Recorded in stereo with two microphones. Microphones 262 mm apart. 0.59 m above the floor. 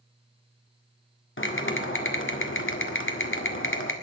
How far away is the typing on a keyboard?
About 1.7 m.